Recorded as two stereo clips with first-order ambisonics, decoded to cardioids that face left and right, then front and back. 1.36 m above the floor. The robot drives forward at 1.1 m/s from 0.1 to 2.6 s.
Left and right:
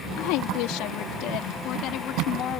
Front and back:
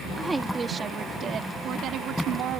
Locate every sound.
0.2 s a woman speaking: 95° left; by 2.6 s 140° left